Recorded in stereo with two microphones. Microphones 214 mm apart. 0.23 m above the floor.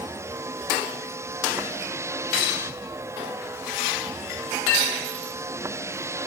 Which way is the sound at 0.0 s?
10° right (ahead or behind).